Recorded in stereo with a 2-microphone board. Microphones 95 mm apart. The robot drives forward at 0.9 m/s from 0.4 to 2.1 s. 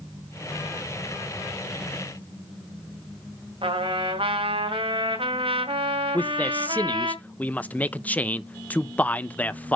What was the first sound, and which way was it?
A trumpet, 75° right (ahead or behind).